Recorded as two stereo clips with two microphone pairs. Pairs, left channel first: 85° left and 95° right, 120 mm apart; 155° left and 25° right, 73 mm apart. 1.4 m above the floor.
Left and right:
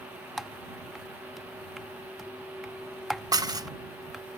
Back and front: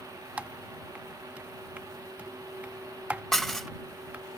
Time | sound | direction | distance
0.4 | typing on a keyboard | 10° right | ?
3.3 | dishes clattering | 110° right | ?